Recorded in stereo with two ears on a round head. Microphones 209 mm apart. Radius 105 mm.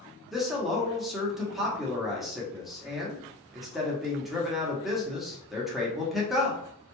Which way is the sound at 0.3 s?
Centre (ahead or behind).